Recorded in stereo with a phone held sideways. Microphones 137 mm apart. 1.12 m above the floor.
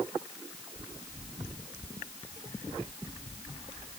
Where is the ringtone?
No ringtone in this recording.